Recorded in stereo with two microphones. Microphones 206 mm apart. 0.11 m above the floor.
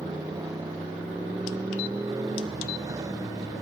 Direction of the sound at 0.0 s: 15° right (ahead or behind).